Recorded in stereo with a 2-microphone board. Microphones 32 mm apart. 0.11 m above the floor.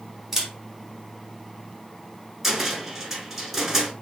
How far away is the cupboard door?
About 0.9 m.